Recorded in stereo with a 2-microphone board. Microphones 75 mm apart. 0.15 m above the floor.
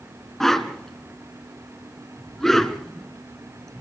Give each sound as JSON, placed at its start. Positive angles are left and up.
{"t": 0.4, "sound": "a whoosh", "side_deg": 5, "distance_m": 1.2}